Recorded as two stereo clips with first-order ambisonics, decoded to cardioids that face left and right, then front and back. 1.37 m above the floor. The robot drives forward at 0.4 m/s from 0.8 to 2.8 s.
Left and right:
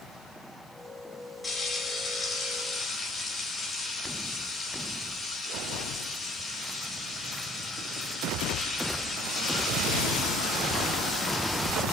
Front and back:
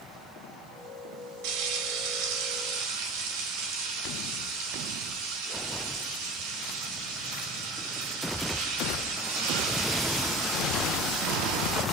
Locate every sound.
1.4 s frying: 165° left, 3.5 m